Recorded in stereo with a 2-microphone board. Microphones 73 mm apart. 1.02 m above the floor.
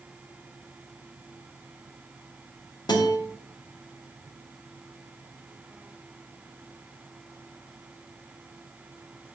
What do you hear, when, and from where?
2.9 s a guitar: 85° left, 2 m